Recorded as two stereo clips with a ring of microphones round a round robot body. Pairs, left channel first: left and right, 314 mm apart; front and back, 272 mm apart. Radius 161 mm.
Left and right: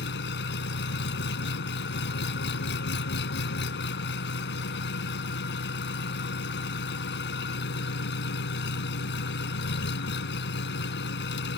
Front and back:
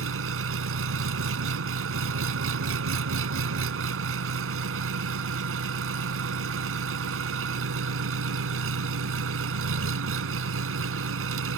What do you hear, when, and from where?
0.0 s an engine running: 145° left